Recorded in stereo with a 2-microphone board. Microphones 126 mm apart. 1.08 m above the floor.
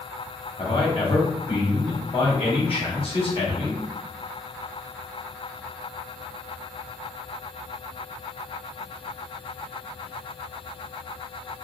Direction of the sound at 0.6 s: 45° left (ahead or behind).